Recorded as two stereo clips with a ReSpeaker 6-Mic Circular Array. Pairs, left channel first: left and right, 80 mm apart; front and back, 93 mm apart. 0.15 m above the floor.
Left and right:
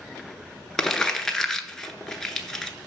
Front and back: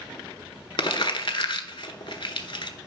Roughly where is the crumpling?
Ahead.